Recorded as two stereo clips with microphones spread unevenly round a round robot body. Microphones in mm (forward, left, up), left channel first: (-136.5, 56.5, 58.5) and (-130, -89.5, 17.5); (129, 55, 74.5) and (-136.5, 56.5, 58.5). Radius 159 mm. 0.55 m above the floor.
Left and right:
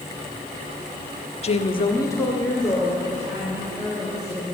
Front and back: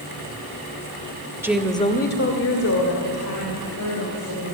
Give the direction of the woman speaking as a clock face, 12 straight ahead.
8 o'clock.